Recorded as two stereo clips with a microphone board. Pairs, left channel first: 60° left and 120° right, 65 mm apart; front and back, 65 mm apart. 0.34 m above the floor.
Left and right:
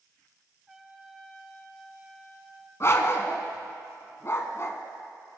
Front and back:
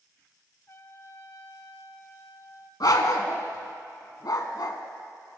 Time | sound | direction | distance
0.7 | a trumpet | 35° right | 1.0 m
2.8 | a dog barking | 15° left | 1.0 m